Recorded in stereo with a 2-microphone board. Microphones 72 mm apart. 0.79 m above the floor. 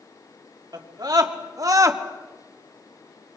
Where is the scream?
65° right (ahead or behind), 2.5 m; by 2.0 s 45° right (ahead or behind), 1.4 m.